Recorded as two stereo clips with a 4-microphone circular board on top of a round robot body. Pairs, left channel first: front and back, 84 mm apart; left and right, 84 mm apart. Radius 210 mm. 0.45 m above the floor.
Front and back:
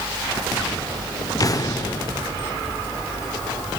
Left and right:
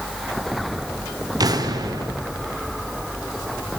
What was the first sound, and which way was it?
An explosion, 45° right.